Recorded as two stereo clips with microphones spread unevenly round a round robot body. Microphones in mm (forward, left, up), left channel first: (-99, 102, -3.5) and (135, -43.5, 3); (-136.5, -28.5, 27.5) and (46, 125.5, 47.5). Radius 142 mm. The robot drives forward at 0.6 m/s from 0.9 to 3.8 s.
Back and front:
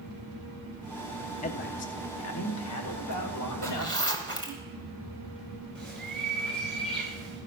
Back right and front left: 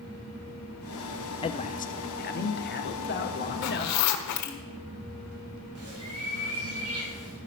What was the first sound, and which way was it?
A man speaking, straight behind.